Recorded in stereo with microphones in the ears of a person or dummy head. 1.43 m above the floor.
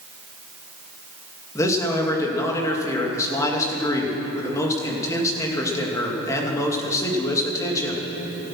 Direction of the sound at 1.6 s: 15° left (ahead or behind).